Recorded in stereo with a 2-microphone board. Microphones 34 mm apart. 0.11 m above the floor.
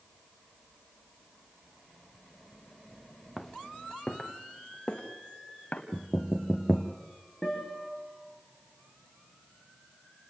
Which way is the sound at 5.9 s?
5° right (ahead or behind).